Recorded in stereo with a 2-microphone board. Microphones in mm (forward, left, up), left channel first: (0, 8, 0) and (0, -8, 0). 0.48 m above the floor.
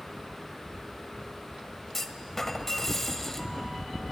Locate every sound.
1.9 s a clunk: 20° left (ahead or behind), 1.3 m